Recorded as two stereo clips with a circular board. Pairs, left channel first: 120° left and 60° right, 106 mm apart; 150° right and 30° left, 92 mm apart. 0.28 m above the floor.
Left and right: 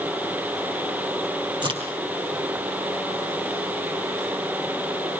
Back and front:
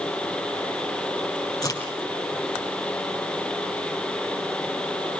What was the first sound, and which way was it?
A crack, 100° right.